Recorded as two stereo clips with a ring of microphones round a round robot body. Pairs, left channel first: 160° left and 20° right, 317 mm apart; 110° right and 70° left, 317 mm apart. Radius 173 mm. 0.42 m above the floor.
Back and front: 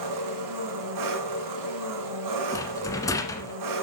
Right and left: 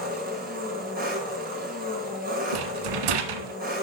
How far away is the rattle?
About 1.4 m.